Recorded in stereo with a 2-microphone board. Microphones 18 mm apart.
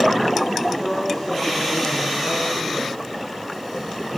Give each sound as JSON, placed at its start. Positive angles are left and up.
{"t": 0.8, "sound": "a woman speaking", "side_deg": 80, "distance_m": 7.0}